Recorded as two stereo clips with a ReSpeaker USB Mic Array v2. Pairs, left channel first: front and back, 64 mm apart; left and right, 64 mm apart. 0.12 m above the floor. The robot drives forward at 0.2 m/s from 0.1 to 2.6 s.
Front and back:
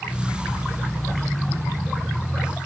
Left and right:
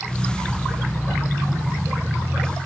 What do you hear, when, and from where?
Only background noise.